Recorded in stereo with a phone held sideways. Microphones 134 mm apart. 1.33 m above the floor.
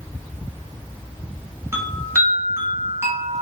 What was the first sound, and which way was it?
A chime, 20° right (ahead or behind).